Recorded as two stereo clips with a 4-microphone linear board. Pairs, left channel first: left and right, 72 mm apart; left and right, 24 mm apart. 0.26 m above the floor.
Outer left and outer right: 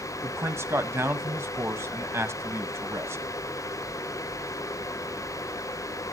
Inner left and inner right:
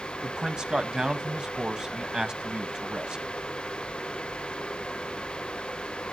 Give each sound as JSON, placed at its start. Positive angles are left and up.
{"t": 0.2, "sound": "a man speaking", "side_deg": -35, "distance_m": 1.4}